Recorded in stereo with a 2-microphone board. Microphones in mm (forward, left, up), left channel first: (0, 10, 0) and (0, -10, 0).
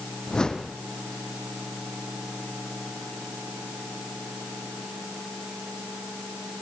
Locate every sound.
0.3 s a whoosh: 40° left (ahead or behind), 2.0 m